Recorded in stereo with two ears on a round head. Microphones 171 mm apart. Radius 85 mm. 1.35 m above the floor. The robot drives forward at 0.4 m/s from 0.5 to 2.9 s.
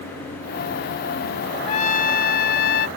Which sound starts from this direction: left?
A trumpet, at 1.7 s.